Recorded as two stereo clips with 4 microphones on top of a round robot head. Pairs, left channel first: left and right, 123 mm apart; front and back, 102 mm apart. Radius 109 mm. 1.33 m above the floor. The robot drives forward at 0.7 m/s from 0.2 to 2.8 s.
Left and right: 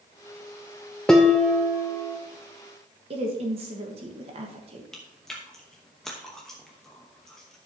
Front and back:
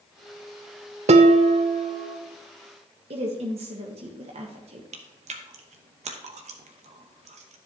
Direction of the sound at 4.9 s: Straight behind.